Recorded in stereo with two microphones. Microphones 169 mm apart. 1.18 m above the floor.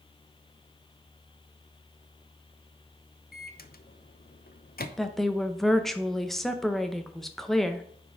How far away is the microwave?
About 0.6 m.